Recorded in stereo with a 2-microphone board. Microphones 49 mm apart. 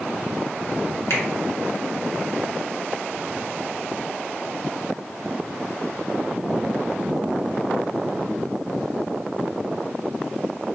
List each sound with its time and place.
1.1 s a finger snap: 70° left (ahead or behind), 1.3 m